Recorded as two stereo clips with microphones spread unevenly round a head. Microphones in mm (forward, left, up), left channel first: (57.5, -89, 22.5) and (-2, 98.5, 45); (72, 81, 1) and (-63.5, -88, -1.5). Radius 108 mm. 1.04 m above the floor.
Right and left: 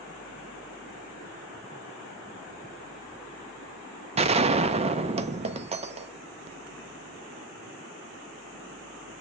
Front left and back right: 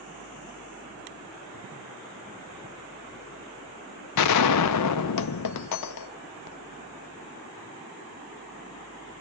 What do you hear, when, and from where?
4.2 s a gunshot: 50° left, 0.5 m